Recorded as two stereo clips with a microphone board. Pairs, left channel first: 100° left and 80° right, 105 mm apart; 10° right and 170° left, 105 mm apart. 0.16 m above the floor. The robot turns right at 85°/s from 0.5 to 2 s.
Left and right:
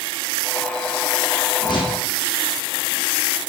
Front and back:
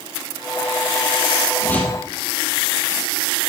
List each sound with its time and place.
1.6 s a whoosh: 50° left, 4.5 m; by 2.0 s 85° left, 4.5 m